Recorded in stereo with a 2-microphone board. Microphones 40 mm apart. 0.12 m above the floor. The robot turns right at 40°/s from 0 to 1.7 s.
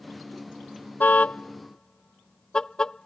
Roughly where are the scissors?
I don't hear scissors.